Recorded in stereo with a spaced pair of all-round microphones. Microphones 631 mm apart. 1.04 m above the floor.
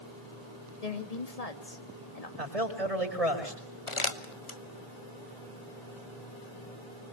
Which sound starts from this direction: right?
A man speaking, at 2.4 s.